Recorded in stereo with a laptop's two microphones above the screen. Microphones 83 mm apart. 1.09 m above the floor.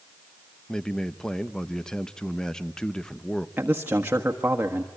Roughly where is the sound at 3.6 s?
Right.